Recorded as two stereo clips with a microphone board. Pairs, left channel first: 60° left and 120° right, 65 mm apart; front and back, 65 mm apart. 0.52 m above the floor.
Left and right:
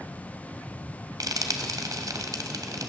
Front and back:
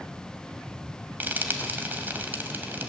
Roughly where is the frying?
Behind right.